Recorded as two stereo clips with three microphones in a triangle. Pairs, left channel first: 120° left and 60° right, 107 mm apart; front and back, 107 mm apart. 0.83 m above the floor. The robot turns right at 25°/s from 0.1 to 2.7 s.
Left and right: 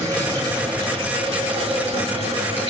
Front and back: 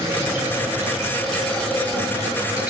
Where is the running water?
120° right, 7.5 m; by 2.7 s 55° right, 7.5 m.